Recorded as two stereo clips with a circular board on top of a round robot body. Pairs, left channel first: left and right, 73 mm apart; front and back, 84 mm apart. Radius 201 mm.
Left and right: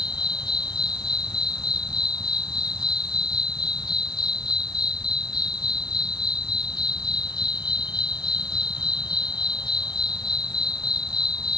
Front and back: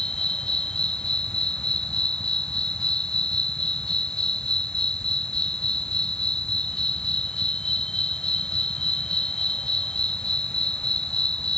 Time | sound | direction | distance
0.0 | an insect | 80° left | ?